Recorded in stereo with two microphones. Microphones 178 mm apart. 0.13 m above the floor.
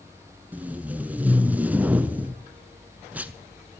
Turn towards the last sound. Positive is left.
turn(degrees=-10)  # may be behind; listen again after turning